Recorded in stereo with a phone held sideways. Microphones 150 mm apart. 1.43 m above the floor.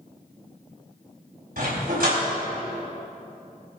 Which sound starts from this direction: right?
A dog barking, at 1.6 s.